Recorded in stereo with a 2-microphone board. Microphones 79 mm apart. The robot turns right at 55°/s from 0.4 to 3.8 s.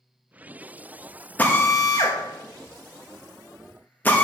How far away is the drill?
About 1.1 m.